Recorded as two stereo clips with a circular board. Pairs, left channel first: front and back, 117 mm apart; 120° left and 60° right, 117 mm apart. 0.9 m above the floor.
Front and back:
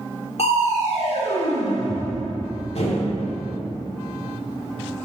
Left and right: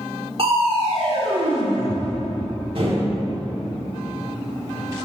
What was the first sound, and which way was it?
Crushing, 25° right.